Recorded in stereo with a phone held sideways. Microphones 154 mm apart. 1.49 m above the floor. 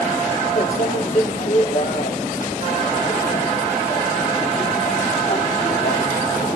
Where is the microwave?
55° left (ahead or behind), 1.4 m.